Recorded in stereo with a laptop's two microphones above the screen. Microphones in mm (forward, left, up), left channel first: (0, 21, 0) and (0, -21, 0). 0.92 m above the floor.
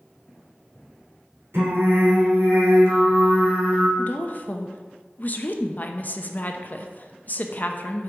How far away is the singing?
About 3 m.